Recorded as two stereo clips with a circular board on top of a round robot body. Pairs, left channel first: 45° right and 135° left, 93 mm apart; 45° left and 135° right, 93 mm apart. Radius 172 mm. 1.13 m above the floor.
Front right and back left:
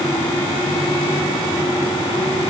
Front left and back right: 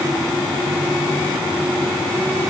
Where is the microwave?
I don't hear a microwave.